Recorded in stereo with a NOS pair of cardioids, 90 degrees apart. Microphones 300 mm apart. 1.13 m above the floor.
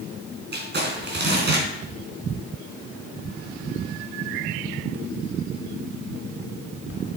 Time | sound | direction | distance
0.5 | crumpling | 35° right | 3.5 m